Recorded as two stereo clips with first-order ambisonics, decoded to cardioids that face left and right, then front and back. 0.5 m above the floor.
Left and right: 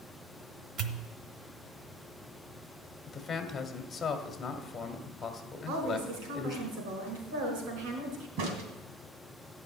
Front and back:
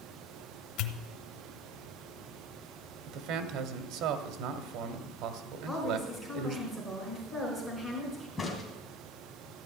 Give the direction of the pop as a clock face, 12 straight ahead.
1 o'clock.